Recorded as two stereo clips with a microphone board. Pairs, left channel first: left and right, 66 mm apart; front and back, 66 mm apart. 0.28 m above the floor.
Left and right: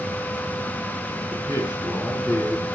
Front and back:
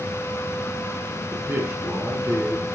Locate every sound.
1.3 s a man speaking: 125° left, 3.5 m